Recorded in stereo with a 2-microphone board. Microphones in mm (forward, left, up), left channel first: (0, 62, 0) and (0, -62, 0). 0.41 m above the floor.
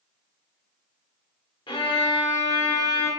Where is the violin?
40° left (ahead or behind), 0.8 m.